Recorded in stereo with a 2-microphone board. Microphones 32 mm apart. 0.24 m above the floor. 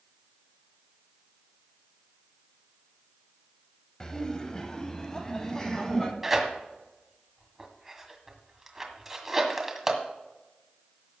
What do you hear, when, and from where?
4.0 s laughter: 20° left (ahead or behind), 1.0 m
6.2 s tearing paper: 10° right (ahead or behind), 1.7 m